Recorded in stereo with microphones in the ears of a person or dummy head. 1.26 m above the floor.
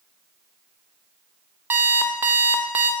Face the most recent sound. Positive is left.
turn(degrees=-10)  # may be behind; listen again after turning